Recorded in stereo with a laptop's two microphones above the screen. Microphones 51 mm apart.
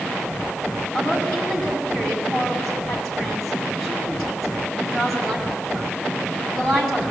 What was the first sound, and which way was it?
A woman speaking, 10° left (ahead or behind).